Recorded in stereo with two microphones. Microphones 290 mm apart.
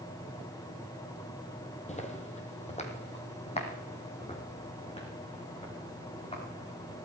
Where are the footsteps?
25° left (ahead or behind), 1.8 m; by 7.0 s 20° left (ahead or behind), 5.5 m.